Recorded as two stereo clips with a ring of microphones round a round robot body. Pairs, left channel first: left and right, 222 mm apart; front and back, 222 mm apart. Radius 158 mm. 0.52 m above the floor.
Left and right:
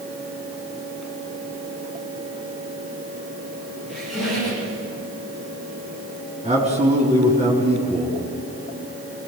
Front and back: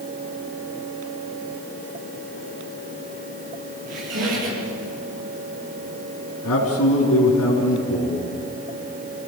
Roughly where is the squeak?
Behind.